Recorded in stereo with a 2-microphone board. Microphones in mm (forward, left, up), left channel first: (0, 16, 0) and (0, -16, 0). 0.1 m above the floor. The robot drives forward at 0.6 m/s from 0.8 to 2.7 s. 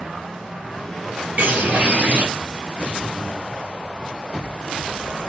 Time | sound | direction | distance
1.4 | a bird | 55° right (ahead or behind) | 1.9 m